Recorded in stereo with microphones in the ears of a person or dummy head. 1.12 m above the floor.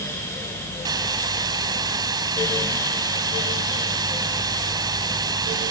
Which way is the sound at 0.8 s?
20° right (ahead or behind).